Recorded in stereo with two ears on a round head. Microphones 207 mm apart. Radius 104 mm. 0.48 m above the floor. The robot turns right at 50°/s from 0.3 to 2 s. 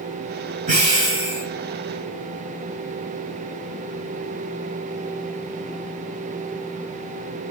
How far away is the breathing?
About 5.5 m.